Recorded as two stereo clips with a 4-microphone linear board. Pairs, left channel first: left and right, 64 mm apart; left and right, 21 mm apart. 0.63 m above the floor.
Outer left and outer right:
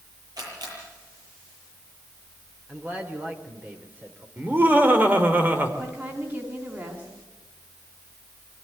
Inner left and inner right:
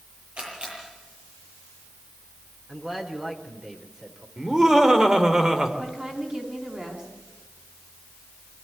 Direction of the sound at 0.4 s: 75° right (ahead or behind).